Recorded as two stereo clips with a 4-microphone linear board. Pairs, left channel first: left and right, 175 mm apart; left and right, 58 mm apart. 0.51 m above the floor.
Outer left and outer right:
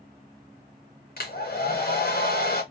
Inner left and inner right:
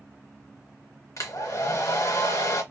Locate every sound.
1.2 s a hair dryer: 60° left (ahead or behind), 0.9 m